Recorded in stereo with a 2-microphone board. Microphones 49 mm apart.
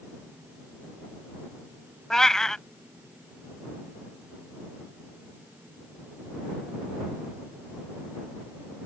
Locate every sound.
2.1 s a cat meowing: 10° left (ahead or behind)